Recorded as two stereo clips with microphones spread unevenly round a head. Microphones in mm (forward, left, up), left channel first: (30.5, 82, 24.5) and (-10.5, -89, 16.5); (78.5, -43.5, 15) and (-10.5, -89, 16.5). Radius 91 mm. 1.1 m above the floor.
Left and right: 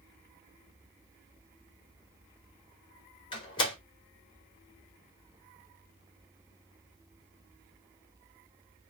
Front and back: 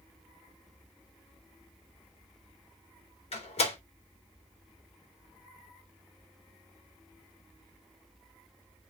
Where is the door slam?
15° left, 3.5 m.